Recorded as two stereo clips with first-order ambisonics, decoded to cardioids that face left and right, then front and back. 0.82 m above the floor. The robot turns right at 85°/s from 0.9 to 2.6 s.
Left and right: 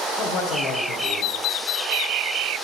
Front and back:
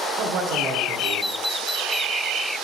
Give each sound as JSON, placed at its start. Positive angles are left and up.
{"t": 0.1, "sound": "a man speaking", "azimuth_deg": 135, "distance_m": 2.5}